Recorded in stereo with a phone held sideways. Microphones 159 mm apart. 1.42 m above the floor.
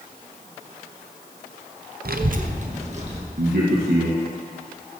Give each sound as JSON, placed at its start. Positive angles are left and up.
{"t": 2.0, "sound": "a child speaking", "side_deg": -70, "distance_m": 0.5}
{"t": 3.4, "sound": "a man speaking", "side_deg": -80, "distance_m": 1.3}